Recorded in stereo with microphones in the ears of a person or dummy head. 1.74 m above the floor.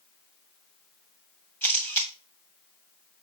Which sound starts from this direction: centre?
A camera shutter, at 1.6 s.